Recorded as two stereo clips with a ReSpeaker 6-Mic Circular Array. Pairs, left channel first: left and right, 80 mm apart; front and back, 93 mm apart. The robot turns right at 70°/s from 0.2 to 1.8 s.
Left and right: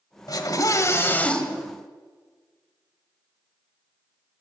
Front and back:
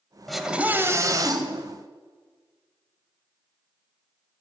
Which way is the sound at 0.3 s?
90° left.